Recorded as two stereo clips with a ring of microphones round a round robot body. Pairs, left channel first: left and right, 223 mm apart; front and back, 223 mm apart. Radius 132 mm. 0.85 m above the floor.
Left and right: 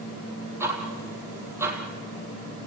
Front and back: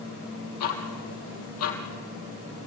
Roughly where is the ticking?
Ahead.